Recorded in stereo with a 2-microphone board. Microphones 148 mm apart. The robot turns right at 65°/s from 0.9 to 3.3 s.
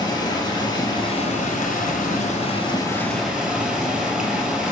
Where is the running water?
25° left, 1.1 m; by 4.7 s 175° right, 1.1 m.